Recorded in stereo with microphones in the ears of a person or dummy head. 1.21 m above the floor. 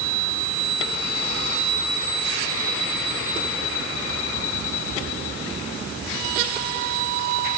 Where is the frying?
No frying in this recording.